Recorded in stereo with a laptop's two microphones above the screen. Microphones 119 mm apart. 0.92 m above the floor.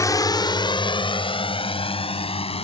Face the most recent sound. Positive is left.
turn(degrees=55)  # may be behind; listen again after turning